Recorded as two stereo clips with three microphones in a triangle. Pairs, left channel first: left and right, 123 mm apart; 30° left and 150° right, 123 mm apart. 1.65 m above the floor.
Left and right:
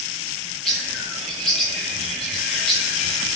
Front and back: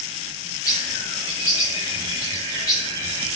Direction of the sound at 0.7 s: 5° left.